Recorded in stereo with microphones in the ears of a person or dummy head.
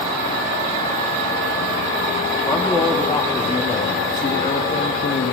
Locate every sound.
2.5 s a man speaking: 10° left (ahead or behind), 3 m; by 5.3 s 45° left (ahead or behind), 2 m